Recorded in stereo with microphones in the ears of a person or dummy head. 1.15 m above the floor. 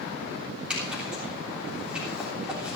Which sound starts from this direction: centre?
A zipper, at 0.7 s.